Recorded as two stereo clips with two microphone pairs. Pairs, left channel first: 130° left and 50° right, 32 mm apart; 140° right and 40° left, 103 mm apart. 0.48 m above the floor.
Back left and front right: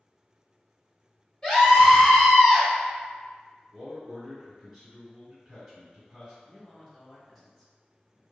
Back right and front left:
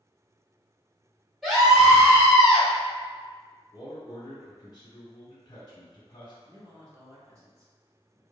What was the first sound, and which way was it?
A scream, 130° left.